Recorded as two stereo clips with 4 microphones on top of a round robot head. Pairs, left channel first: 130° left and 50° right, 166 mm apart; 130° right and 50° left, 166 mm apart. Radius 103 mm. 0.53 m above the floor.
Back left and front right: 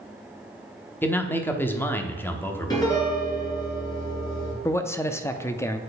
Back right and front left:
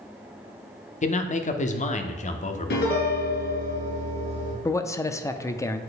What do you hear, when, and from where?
1.0 s a man speaking: 155° right, 1.0 m
2.7 s a piano: 160° right, 2.5 m
4.7 s a man speaking: 175° right, 0.6 m